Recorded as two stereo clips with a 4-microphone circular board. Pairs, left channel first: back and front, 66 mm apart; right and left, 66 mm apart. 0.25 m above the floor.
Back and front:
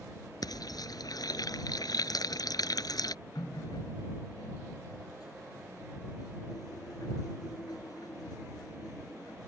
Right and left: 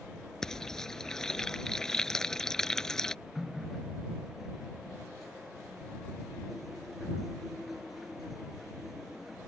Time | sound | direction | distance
0.4 | frying | 170° right | ?
3.4 | a running tap | straight behind | ?